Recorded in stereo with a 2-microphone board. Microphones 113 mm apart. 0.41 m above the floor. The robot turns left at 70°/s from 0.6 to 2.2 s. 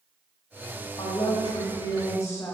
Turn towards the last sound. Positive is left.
turn(degrees=40)